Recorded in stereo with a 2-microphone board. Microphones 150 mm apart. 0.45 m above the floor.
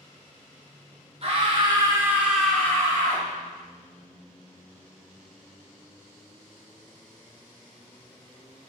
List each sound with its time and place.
1.2 s a scream: 40° right (ahead or behind), 1.0 m; by 3.2 s 35° left (ahead or behind), 0.9 m